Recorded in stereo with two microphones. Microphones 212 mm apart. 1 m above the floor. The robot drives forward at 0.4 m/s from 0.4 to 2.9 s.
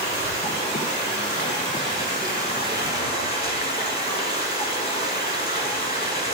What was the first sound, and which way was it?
Running water, 30° left (ahead or behind).